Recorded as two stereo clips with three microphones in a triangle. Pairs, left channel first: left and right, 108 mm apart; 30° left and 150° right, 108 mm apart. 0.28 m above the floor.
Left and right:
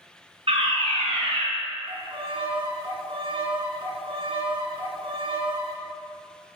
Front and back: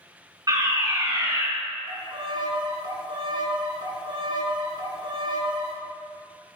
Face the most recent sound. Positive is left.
turn(degrees=-115)